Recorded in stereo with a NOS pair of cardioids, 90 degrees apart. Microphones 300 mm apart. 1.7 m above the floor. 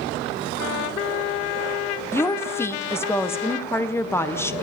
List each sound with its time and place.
2.1 s a woman speaking: 10° left, 1.5 m